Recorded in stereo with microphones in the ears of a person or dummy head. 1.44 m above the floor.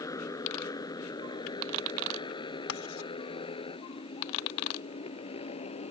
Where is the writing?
75° left (ahead or behind).